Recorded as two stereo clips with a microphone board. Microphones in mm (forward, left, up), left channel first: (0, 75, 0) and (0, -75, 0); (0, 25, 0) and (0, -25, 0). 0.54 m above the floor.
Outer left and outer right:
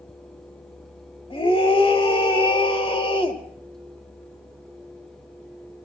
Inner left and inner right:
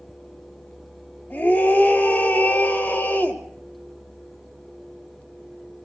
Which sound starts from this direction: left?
A scream, at 1.3 s.